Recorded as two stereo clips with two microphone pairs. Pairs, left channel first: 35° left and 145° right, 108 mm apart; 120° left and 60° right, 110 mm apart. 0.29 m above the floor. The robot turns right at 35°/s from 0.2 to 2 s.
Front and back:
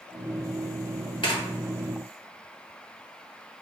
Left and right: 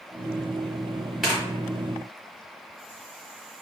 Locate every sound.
1.2 s tearing paper: 30° left, 1.0 m; by 1.3 s 35° left, 1.0 m